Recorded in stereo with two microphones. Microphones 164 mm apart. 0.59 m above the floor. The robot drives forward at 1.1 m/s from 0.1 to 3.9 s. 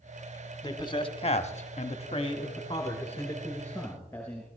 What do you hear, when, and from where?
0.6 s a man speaking: 25° left (ahead or behind), 1.4 m; by 4.5 s 15° left (ahead or behind), 2.5 m